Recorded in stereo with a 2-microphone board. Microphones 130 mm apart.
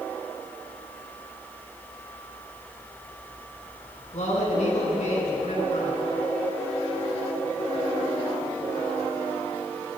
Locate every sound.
4.1 s a man speaking: 60° left (ahead or behind), 4 m